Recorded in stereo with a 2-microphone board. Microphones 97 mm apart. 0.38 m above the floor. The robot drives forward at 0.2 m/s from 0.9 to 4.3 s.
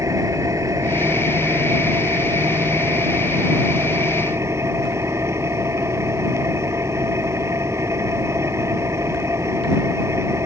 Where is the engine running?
35° right (ahead or behind); by 10.5 s 30° right (ahead or behind).